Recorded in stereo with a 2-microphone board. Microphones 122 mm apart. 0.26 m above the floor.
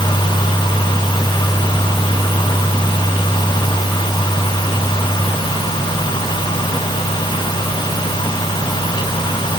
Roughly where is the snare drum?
No snare drum in this recording.